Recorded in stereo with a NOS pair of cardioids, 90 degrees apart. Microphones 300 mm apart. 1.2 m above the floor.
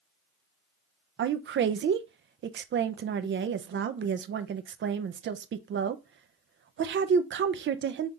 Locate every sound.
1.2 s a woman speaking: 40° right, 0.6 m